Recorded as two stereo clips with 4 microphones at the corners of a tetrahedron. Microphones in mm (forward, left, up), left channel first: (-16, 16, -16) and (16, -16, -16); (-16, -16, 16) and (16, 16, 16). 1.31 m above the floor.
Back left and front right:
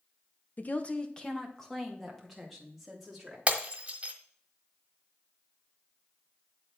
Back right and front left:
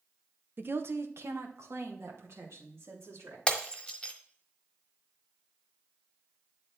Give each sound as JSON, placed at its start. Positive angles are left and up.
{"t": 0.6, "sound": "a woman speaking", "azimuth_deg": 85, "distance_m": 0.7}
{"t": 3.5, "sound": "breaking glass", "azimuth_deg": -80, "distance_m": 1.2}